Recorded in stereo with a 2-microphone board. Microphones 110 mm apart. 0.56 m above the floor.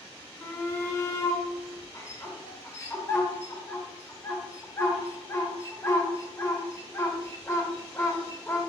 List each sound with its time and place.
0.4 s a shout: 25° left (ahead or behind), 1.0 m